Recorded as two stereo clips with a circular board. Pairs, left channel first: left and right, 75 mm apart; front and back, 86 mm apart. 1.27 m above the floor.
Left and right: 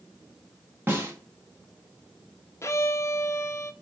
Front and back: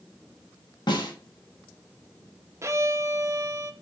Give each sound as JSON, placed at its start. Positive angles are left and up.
{"t": 0.9, "sound": "a snare drum", "azimuth_deg": -30, "distance_m": 1.4}
{"t": 2.6, "sound": "a violin", "azimuth_deg": 130, "distance_m": 0.5}